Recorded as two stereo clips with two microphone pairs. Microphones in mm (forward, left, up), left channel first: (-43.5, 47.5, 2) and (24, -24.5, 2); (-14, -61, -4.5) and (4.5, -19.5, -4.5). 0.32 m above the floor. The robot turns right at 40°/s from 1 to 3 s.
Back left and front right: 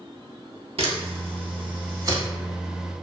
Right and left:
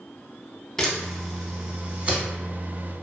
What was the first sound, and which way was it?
A camera shutter, 40° right.